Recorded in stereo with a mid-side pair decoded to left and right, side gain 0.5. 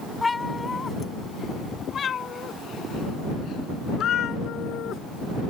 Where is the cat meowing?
20° left; by 5.0 s 65° left.